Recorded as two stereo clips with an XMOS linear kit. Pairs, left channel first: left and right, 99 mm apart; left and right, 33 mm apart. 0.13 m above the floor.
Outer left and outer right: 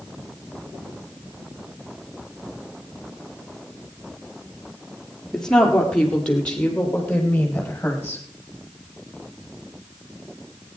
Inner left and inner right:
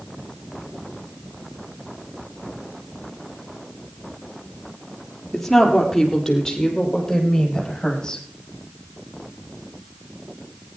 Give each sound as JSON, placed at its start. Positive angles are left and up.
{"t": 5.3, "sound": "a woman speaking", "side_deg": 5, "distance_m": 3.0}